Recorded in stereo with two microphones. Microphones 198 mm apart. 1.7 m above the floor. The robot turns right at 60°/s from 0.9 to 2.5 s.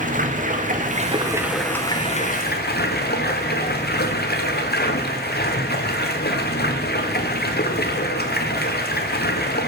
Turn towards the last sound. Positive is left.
turn(degrees=55)